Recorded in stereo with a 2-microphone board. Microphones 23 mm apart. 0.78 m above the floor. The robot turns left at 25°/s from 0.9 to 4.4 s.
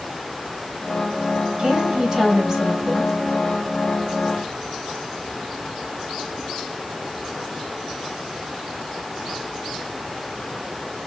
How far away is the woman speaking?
About 3.5 m.